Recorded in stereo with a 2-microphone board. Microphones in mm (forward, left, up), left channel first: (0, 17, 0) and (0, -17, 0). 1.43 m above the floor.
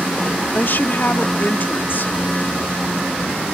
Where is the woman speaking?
60° left (ahead or behind).